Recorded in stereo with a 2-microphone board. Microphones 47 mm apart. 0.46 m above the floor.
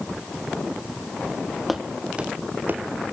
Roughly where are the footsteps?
Centre.